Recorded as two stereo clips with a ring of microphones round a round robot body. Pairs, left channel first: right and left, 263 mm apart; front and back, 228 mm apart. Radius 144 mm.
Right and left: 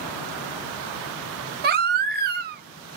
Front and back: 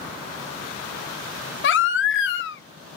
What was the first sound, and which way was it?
A baby crying, 35° left.